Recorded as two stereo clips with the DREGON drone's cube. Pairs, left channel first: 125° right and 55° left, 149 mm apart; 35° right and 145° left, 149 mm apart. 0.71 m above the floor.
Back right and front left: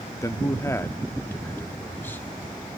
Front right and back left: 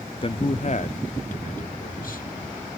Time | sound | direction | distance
0.2 | a man speaking | 65° right | 0.7 m